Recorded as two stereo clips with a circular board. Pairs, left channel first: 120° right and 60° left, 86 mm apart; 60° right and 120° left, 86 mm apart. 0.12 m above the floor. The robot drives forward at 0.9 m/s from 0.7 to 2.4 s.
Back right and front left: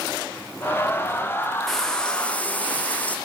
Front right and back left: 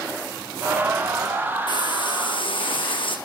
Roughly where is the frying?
Ahead right.